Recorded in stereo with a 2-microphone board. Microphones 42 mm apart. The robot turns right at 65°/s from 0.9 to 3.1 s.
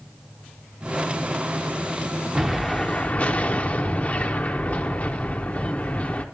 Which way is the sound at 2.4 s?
15° right.